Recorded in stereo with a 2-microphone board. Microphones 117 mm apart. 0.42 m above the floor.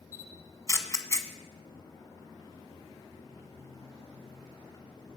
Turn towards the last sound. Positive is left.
turn(degrees=25)  # may be behind; listen again after turning